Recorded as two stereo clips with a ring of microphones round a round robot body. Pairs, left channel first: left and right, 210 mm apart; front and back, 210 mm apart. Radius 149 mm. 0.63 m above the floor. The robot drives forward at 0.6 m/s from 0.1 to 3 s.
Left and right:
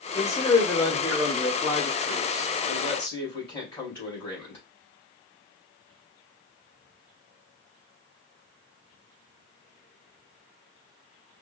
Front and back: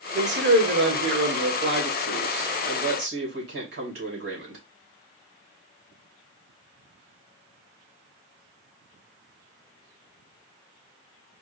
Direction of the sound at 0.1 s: 165° left.